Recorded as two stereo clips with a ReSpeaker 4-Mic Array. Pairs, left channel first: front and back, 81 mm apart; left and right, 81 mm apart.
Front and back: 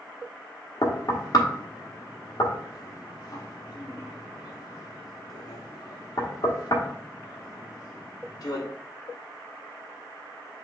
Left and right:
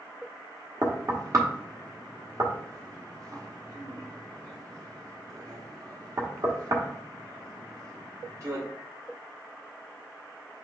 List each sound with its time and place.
0.8 s knocking: 40° right, 1.0 m